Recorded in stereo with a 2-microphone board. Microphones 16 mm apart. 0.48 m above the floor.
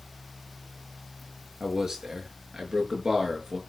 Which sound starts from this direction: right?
A man speaking, at 1.6 s.